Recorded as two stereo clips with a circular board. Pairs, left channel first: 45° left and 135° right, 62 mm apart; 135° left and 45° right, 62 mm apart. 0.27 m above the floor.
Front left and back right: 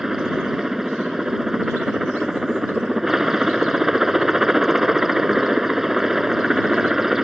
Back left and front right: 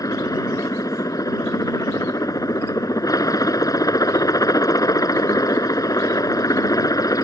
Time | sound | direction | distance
0.0 | a helicopter | 140° left | ?